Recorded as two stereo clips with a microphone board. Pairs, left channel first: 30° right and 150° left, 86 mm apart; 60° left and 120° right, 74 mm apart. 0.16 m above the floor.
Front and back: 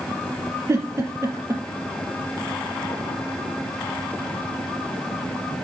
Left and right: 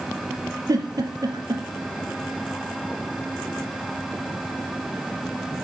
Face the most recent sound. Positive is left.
turn(degrees=-155)